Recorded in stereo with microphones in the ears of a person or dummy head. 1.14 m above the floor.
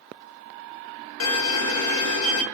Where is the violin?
75° left (ahead or behind), 0.7 m.